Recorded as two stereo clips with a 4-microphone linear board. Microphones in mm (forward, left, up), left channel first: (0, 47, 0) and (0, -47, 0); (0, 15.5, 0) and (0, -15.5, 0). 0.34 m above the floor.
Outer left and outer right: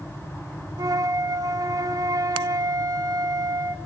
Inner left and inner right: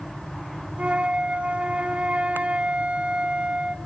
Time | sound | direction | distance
0.8 | a flute | 40° right (ahead or behind) | 0.9 m